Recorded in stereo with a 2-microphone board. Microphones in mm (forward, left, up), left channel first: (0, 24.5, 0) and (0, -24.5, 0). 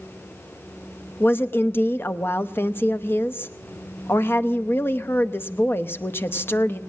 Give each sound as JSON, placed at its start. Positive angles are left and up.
{"t": 1.2, "sound": "a woman speaking", "side_deg": 50, "distance_m": 0.8}